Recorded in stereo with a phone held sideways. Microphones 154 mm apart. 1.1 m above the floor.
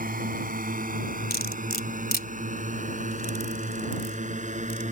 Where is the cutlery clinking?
75° left (ahead or behind).